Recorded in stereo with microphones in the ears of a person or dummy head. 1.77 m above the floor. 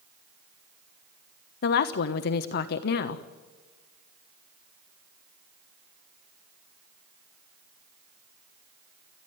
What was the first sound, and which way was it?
A woman speaking, 55° left (ahead or behind).